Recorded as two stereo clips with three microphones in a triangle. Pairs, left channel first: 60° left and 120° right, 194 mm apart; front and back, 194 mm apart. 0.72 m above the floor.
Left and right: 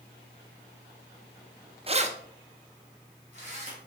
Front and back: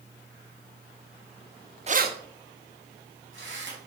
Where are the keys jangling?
155° right, 0.5 m; by 3.8 s 170° right, 3.5 m.